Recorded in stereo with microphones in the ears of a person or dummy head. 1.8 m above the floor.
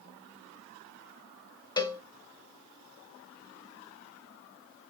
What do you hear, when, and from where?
1.8 s a cowbell: 20° left (ahead or behind), 0.7 m